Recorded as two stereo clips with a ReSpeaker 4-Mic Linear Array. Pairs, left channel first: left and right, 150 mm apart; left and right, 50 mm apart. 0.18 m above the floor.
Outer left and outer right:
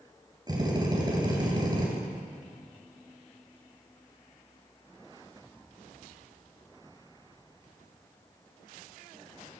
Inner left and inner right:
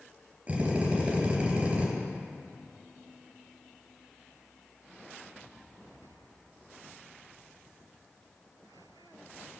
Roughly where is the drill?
Right.